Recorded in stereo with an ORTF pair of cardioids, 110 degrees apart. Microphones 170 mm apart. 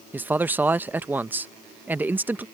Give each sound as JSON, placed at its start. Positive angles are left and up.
{"t": 0.1, "sound": "a man speaking", "azimuth_deg": -10}